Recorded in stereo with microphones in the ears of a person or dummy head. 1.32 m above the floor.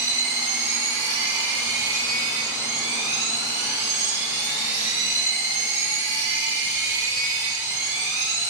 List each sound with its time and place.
0.0 s a machine running: 10° right (ahead or behind), 7 m